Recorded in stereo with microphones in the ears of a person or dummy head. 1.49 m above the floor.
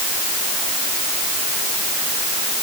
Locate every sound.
Only background noise.